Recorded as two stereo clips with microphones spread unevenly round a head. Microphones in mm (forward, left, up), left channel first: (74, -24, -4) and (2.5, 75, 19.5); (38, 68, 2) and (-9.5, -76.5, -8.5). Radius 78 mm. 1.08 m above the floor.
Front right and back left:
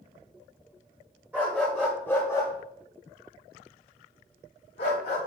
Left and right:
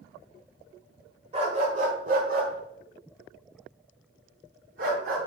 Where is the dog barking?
160° right, 1.2 m; by 5.2 s 80° right, 2 m.